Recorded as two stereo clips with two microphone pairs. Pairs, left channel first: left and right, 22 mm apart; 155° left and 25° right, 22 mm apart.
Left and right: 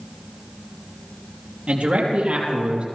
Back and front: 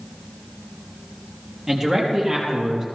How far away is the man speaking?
About 4 m.